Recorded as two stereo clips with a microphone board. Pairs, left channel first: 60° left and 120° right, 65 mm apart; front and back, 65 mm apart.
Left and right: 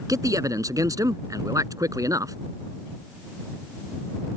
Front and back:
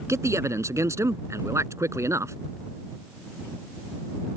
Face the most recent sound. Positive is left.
turn(degrees=-145)